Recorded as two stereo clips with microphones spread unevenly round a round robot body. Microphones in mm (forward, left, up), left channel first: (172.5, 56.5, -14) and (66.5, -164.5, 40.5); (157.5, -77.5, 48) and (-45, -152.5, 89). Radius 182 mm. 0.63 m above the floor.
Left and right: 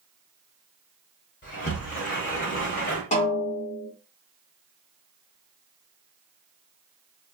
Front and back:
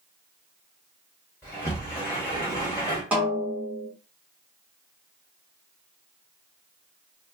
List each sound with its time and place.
1.4 s a sliding door: 85° left, 1.1 m
3.1 s a snare drum: 110° left, 0.7 m